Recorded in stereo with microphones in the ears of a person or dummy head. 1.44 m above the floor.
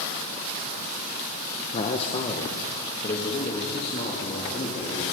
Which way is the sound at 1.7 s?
35° left (ahead or behind).